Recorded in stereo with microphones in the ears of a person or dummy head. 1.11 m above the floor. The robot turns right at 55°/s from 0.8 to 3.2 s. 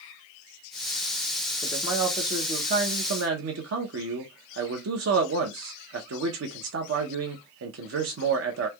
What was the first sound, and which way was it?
A man speaking, 175° left.